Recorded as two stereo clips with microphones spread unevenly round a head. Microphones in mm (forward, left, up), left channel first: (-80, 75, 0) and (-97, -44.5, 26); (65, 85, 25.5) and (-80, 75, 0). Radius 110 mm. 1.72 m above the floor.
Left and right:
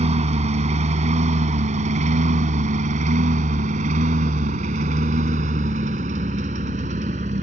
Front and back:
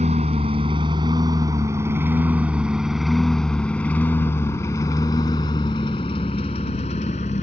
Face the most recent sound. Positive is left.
turn(degrees=-50)